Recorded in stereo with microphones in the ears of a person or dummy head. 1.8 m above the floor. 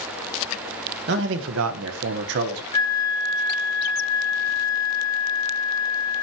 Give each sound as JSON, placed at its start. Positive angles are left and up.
{"t": 1.1, "sound": "a man speaking", "side_deg": -65, "distance_m": 2.5}
{"t": 2.7, "sound": "a flute", "side_deg": 20, "distance_m": 3.0}